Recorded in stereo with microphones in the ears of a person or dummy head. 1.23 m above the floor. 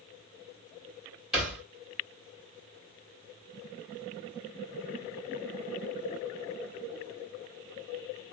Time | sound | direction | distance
1.3 | a thud | 5° right (ahead or behind) | 1.6 m